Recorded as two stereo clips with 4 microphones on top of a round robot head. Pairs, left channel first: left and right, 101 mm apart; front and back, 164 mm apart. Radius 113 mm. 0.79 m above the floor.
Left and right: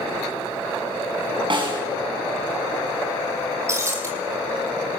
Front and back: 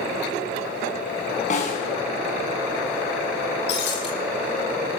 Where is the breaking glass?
30° right, 7 m.